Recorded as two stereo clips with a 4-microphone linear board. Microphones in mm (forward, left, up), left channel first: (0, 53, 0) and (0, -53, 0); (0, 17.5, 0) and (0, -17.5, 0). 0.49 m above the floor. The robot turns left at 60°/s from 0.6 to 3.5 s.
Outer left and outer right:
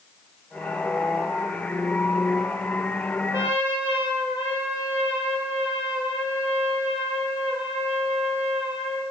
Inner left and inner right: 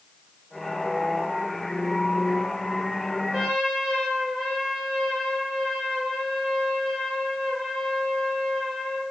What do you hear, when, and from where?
3.3 s a trumpet: 30° right (ahead or behind), 2.0 m; by 9.0 s 20° right (ahead or behind), 2.0 m